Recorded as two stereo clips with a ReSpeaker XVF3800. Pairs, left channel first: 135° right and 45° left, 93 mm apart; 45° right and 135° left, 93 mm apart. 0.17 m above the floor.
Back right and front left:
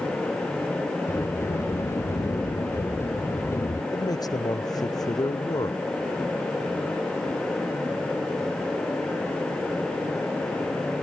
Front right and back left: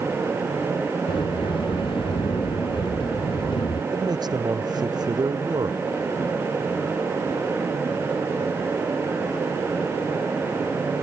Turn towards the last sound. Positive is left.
turn(degrees=175)